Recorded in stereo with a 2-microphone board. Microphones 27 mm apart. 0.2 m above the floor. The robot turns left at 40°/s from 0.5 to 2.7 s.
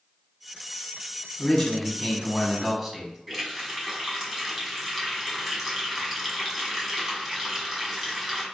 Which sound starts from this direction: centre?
A running tap, at 3.3 s.